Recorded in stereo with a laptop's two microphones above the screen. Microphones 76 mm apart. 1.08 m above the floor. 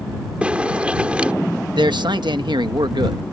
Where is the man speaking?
80° right.